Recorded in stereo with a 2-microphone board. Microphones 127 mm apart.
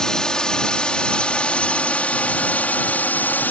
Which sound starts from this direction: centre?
A drone, at 0.0 s.